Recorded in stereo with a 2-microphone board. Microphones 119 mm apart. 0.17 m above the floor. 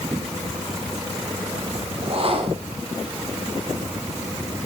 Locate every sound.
2.0 s a whoosh: 50° right (ahead or behind), 3.5 m